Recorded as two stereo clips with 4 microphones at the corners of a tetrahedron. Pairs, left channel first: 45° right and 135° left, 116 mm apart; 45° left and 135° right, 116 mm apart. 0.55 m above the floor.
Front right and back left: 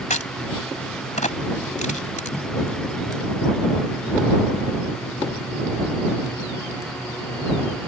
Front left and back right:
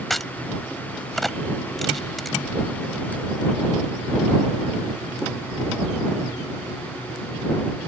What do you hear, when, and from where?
0.1 s a crack: 45° right